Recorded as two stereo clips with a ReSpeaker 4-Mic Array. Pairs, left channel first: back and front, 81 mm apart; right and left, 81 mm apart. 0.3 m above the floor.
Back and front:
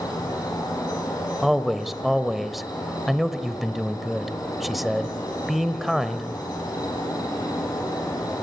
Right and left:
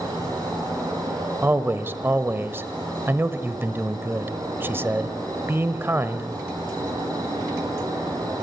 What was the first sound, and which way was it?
An insect, 135° left.